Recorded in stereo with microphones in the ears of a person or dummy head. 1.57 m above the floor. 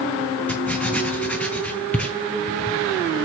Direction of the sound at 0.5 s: 10° left (ahead or behind).